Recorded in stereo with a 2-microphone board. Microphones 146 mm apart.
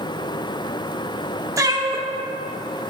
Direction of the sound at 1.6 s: 20° right (ahead or behind).